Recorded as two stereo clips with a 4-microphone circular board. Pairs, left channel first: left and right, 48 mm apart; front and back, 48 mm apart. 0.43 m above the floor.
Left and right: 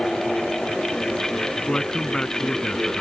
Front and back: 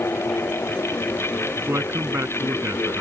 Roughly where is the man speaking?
Behind.